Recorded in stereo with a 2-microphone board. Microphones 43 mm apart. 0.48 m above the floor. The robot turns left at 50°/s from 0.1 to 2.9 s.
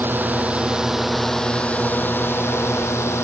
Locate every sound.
0.0 s a drone: 50° right (ahead or behind); by 3.2 s 85° left